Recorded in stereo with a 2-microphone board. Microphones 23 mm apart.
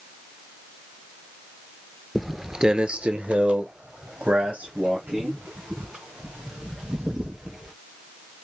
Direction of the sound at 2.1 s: 5° left (ahead or behind).